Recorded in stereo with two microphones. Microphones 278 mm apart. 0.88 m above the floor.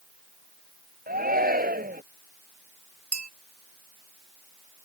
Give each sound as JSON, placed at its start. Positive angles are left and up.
{"t": 1.1, "sound": "a shout", "side_deg": -30}
{"t": 3.1, "sound": "a bell", "side_deg": -85}